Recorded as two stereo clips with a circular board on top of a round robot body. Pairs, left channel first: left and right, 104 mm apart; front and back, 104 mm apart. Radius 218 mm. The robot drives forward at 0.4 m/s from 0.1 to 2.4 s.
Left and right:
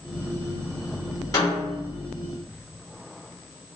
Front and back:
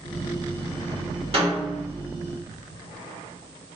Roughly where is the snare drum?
Behind left.